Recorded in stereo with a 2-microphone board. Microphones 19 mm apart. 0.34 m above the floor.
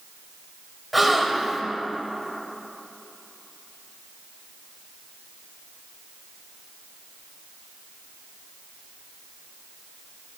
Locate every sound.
0.9 s a gasp: 5° right (ahead or behind), 0.8 m